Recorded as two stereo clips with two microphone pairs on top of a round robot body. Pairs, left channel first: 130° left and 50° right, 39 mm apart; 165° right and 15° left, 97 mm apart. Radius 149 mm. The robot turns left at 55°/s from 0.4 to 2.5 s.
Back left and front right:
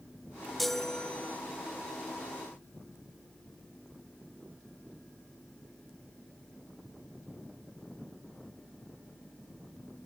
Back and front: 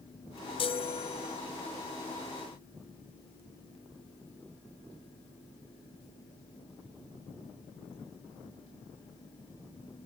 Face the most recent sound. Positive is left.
turn(degrees=120)